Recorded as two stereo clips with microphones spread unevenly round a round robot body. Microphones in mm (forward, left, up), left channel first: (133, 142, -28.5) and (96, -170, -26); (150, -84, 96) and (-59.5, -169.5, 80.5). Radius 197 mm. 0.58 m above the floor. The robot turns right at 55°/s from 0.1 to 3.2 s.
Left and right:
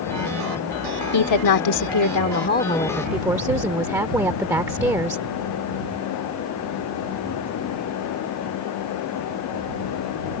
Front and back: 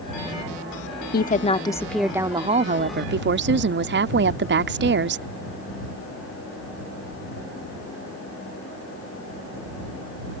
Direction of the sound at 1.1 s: 70° left.